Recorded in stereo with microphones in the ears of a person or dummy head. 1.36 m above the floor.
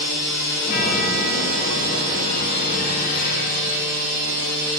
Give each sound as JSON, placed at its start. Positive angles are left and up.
{"t": 0.6, "sound": "a chime", "side_deg": 50, "distance_m": 3.0}